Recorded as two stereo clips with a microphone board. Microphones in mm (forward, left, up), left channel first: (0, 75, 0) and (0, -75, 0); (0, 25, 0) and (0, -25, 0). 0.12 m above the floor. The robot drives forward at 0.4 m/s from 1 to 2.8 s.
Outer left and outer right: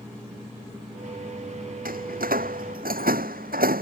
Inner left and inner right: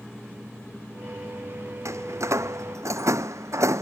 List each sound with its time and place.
1.9 s a door slam: 75° right (ahead or behind)